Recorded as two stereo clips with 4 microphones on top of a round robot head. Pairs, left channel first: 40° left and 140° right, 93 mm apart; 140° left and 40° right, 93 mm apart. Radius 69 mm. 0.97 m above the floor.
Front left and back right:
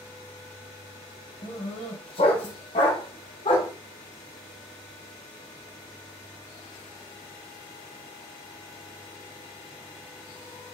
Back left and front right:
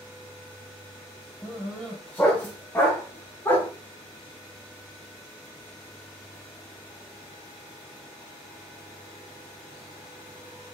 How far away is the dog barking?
About 2.5 m.